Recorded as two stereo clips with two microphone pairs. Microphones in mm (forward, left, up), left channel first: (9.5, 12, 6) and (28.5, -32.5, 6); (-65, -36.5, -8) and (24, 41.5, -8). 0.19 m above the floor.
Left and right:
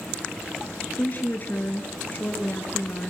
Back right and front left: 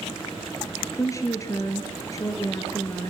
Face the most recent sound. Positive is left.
turn(degrees=160)